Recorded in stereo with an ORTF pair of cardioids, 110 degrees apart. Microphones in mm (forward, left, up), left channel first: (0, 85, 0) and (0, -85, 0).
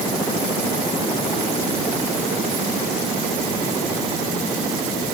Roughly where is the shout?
I don't hear a shout.